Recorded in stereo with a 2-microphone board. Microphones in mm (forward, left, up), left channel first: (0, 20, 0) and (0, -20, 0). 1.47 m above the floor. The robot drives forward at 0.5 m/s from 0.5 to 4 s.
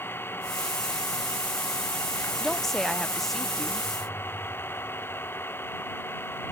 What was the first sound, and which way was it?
An engine running, 65° left (ahead or behind).